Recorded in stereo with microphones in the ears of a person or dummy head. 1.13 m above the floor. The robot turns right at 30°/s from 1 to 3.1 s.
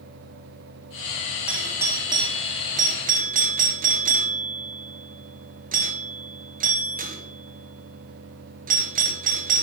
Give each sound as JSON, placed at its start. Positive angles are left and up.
{"t": 1.5, "sound": "a doorbell", "side_deg": -5, "distance_m": 0.7}